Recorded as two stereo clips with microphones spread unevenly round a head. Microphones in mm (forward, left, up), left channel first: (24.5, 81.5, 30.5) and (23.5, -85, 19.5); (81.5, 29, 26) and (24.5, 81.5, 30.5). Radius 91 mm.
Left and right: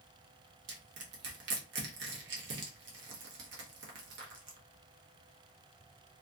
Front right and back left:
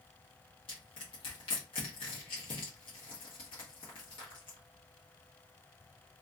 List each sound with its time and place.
0.7 s crushing: 70° right, 0.8 m